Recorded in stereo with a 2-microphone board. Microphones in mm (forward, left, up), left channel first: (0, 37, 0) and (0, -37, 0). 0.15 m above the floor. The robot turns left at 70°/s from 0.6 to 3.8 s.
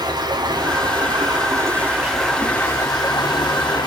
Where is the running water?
65° right, 7 m; by 3.9 s 70° left, 7 m.